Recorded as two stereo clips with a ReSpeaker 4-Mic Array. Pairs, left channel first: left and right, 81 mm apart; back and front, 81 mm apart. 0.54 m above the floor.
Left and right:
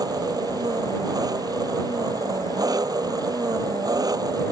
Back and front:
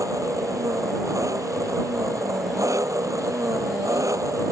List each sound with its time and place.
0.0 s an engine running: 50° right